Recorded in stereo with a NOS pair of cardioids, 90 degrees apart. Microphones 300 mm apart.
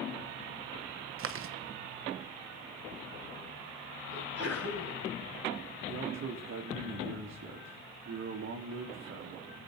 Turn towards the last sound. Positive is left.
turn(degrees=-40)